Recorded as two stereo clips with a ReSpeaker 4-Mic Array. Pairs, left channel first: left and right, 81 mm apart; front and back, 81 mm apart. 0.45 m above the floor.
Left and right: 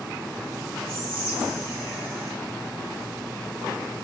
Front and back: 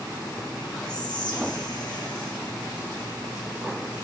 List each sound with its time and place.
0.9 s whispering: 25° right, 3.5 m